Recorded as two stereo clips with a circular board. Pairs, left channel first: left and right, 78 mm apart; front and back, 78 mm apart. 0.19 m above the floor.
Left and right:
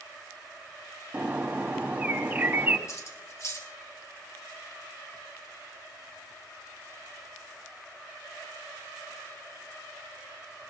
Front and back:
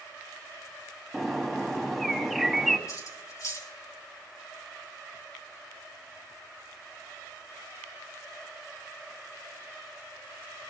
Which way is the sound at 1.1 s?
85° right.